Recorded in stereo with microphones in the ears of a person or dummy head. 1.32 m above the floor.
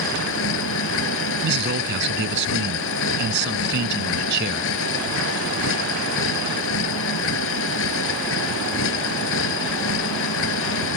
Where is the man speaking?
65° right (ahead or behind).